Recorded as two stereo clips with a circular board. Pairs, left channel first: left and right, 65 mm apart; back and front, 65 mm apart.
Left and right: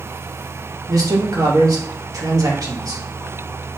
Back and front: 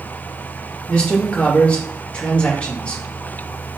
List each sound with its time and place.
0.9 s a man speaking: 105° right, 2.5 m